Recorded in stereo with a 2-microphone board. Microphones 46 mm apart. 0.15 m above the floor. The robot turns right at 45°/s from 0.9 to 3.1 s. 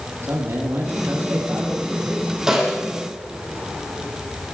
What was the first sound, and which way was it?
A man speaking, 55° right.